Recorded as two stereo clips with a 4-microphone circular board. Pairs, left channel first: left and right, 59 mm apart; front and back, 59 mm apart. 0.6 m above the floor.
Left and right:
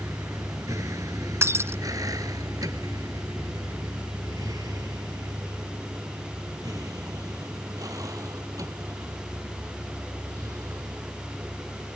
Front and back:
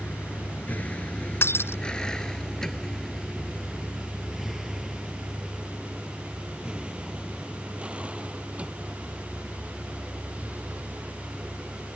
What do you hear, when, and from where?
0.0 s a vehicle: 60° right; by 11.9 s 115° right
1.4 s breaking glass: 50° right